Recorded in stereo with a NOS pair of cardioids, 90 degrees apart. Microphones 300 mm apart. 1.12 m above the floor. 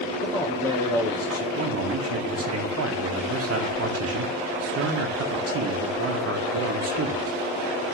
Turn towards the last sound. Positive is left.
turn(degrees=-50)